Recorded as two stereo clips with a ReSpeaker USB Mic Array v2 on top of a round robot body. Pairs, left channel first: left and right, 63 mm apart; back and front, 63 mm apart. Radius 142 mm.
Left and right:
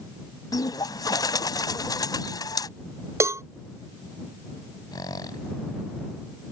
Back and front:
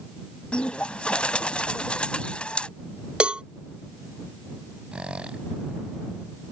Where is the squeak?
75° left.